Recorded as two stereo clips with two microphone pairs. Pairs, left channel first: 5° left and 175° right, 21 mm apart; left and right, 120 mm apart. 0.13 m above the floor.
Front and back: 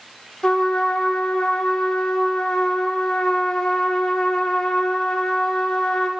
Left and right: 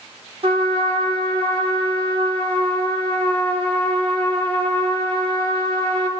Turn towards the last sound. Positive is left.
turn(degrees=-55)